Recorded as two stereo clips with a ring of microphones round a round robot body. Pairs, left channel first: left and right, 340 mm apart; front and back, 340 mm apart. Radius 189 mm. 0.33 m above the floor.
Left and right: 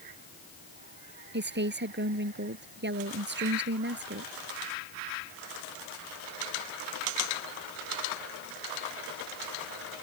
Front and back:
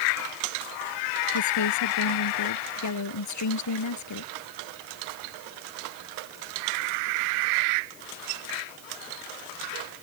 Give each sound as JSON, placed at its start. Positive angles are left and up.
{"t": 1.3, "sound": "a woman speaking", "azimuth_deg": -35}